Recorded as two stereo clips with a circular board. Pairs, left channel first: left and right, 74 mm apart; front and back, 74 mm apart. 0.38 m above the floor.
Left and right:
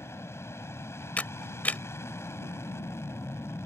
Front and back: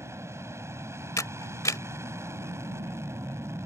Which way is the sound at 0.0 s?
135° left.